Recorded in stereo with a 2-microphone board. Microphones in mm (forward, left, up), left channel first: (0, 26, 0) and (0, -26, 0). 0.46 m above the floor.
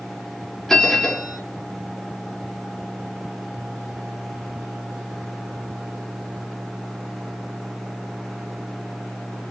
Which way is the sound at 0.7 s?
5° left (ahead or behind).